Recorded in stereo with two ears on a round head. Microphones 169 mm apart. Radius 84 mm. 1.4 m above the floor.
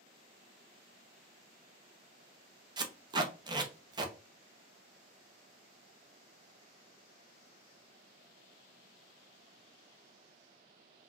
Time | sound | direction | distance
2.8 | tape being pulled | 25° right (ahead or behind) | 0.7 m